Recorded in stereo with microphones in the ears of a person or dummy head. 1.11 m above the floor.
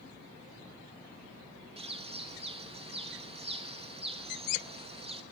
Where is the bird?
35° right (ahead or behind), 1.1 m.